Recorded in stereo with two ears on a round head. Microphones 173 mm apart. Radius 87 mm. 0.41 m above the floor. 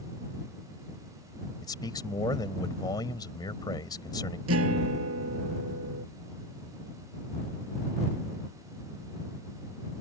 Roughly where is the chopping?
No chopping in this recording.